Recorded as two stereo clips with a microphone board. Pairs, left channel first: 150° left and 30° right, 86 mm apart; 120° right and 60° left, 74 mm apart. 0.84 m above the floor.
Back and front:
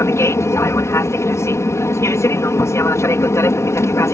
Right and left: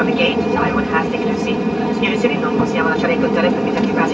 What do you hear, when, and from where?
0.0 s an aircraft: 145° left